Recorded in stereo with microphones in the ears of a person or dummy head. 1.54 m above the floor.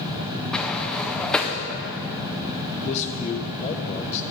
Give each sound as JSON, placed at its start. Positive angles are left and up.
{"t": 0.5, "sound": "a sliding door", "side_deg": 5, "distance_m": 0.6}
{"t": 2.7, "sound": "a man speaking", "side_deg": 35, "distance_m": 0.9}